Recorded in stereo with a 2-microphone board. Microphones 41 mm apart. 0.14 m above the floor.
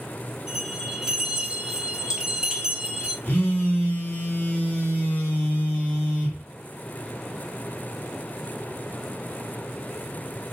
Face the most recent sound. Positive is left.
turn(degrees=45)  # may be behind; listen again after turning